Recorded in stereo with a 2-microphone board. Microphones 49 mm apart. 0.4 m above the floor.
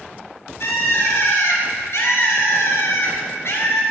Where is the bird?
65° left (ahead or behind), 2.5 m.